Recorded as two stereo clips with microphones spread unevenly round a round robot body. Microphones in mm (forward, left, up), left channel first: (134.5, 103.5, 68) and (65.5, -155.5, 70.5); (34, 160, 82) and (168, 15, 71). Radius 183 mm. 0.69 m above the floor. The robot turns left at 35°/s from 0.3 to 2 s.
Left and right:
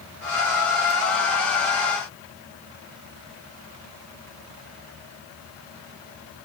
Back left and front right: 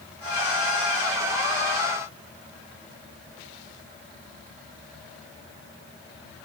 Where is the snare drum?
I don't hear a snare drum.